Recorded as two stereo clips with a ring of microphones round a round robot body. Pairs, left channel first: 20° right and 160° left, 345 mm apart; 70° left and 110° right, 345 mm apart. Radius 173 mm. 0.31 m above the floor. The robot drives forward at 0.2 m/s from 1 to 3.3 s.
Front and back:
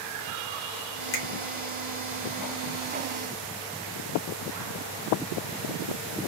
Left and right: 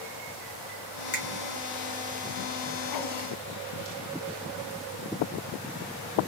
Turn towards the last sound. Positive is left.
turn(degrees=40)